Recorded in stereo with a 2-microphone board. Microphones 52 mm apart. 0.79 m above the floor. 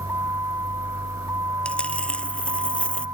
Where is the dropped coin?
20° left (ahead or behind).